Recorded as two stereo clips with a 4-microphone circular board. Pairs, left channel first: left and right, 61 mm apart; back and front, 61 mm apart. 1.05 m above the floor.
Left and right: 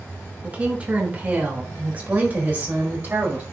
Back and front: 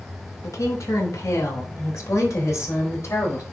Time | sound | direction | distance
0.4 | a woman speaking | 160° right | 3 m